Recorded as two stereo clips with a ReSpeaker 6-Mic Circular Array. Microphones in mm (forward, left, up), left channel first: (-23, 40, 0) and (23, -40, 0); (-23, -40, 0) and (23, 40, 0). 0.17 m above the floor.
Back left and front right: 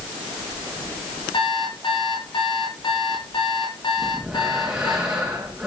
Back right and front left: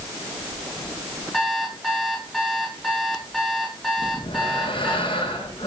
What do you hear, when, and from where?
1.3 s an alarm clock: 150° left, 10 m
4.0 s breathing: 145° right, 8.5 m